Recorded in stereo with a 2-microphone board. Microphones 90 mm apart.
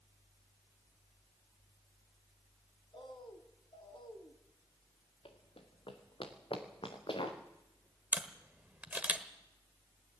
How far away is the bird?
About 1.8 m.